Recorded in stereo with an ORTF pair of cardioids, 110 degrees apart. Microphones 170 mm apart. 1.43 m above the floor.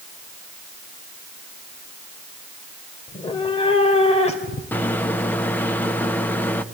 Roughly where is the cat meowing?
Ahead left.